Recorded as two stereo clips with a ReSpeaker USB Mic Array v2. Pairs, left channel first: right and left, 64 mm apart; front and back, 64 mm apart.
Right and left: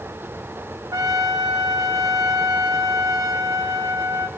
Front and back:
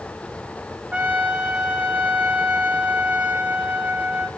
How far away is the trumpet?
About 2.5 m.